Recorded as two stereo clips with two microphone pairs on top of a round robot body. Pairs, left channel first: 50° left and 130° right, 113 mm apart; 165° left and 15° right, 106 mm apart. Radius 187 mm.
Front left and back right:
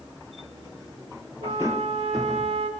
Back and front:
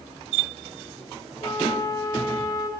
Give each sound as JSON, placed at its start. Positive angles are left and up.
{"t": 1.4, "sound": "a flute", "azimuth_deg": -140, "distance_m": 2.0}